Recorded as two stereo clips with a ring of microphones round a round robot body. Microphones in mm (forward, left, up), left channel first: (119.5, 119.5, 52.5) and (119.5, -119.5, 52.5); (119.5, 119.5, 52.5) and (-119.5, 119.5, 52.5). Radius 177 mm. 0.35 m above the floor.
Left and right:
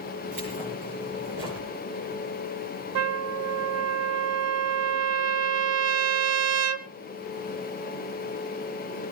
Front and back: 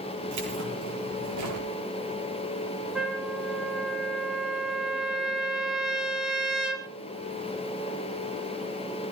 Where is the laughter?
I don't hear laughter.